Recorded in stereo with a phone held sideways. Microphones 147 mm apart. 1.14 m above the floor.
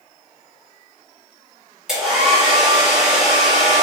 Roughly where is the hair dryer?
Centre.